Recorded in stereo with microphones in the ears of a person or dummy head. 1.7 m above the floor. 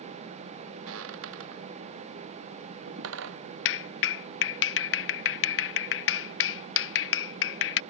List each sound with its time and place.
0.9 s footsteps: 85° right; by 3.4 s 80° right
3.6 s a clap: 70° left (ahead or behind)